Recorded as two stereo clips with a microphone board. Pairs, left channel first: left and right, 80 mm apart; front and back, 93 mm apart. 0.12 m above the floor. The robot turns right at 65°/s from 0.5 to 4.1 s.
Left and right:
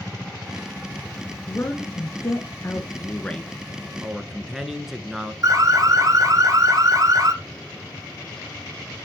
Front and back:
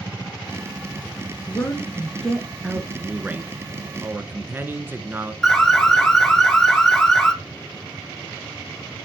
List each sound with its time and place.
1.5 s a woman speaking: 35° left, 1.4 m; by 2.9 s 125° left, 1.4 m
3.0 s a man speaking: 115° left, 1.1 m; by 5.3 s 170° right, 1.1 m
5.4 s an alarm: 85° right, 1.4 m